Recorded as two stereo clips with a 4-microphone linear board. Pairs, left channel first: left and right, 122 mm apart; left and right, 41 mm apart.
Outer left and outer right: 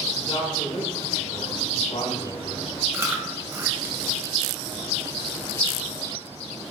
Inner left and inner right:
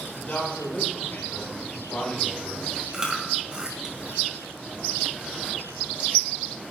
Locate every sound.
0.2 s a man speaking: 50° left (ahead or behind), 4.5 m; by 2.7 s 65° left (ahead or behind), 3 m
2.9 s chewing: 20° right (ahead or behind), 1.9 m